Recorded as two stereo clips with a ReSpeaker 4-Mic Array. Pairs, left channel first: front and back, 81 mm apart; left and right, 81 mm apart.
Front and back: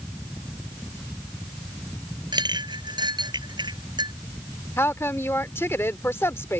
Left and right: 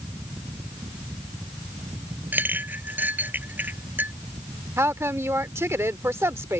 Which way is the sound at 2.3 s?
155° right.